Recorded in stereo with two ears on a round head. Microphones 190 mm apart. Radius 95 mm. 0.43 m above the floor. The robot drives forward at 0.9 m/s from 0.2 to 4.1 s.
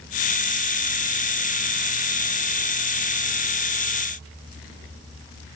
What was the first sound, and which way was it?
Only background noise.